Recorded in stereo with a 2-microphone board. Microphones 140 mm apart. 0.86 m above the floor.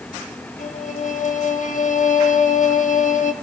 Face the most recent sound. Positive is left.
turn(degrees=65)  # may be behind; listen again after turning